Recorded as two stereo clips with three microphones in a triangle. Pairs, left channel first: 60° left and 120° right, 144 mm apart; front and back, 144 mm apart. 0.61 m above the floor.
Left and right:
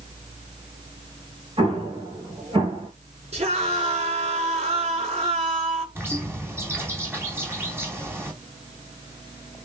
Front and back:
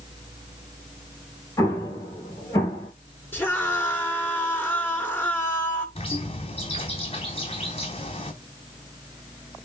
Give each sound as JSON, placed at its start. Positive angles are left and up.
{"t": 1.6, "sound": "an explosion", "azimuth_deg": -65, "distance_m": 5.0}
{"t": 3.3, "sound": "a scream", "azimuth_deg": -75, "distance_m": 6.5}
{"t": 6.0, "sound": "a bird", "azimuth_deg": -45, "distance_m": 3.5}